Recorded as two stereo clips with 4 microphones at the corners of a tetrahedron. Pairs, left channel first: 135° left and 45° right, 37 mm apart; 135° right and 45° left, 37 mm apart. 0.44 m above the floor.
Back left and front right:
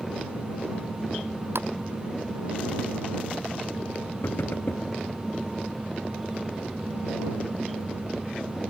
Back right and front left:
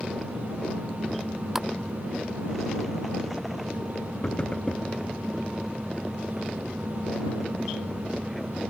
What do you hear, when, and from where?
1.6 s a splash: 35° right
4.2 s knocking: 160° left